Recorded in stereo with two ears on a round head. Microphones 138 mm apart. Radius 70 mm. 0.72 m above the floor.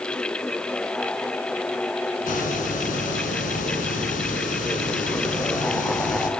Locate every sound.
2.2 s a hiss: 60° left (ahead or behind), 6 m